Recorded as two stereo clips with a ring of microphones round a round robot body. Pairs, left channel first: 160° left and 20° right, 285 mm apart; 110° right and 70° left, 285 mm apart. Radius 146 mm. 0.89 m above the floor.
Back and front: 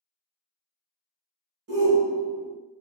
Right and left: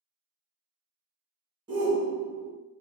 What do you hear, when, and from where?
1.7 s a shout: 5° left, 0.8 m